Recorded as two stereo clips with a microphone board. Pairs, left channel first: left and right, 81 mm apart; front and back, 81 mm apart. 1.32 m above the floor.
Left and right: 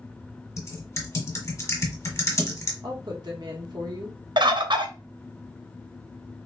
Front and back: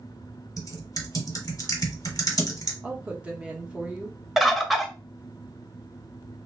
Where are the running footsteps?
No running footsteps in this recording.